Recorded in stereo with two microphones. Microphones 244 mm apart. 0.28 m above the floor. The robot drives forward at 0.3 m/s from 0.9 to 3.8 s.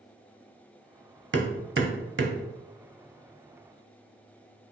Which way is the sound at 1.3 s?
50° right (ahead or behind).